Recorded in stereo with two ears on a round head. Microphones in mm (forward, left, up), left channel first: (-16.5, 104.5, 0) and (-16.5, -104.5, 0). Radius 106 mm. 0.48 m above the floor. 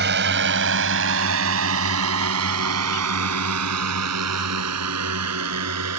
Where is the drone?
45° right (ahead or behind); by 6.0 s 80° right.